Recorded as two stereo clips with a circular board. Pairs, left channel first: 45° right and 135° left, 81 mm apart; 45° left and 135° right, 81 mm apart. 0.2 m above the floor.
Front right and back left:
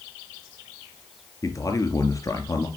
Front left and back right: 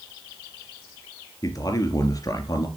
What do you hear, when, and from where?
1.4 s a man speaking: straight ahead, 3 m